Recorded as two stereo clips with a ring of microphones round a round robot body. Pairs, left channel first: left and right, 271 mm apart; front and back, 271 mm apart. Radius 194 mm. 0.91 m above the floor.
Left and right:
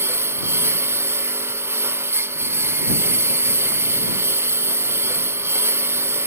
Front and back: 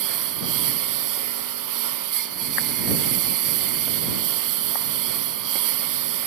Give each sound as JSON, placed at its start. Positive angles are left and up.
{"t": 0.0, "sound": "a lawn mower", "azimuth_deg": -170}